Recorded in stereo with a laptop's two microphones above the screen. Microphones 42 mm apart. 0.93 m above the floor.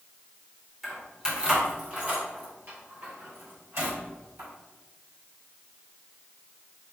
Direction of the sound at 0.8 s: 5° right (ahead or behind).